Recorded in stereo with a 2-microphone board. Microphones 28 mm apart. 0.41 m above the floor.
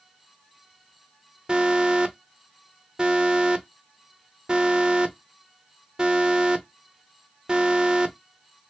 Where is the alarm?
30° right (ahead or behind), 0.6 m.